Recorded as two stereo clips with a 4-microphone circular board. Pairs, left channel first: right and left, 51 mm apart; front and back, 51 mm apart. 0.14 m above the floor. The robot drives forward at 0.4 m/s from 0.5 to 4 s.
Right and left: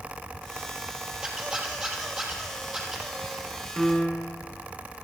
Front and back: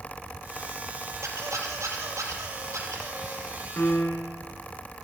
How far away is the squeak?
About 2.5 m.